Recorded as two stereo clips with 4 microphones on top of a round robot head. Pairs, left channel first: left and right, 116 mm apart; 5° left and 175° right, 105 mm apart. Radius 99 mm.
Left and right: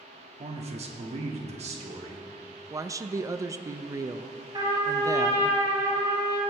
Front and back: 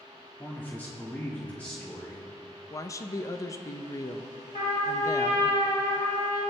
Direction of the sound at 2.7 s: 40° right.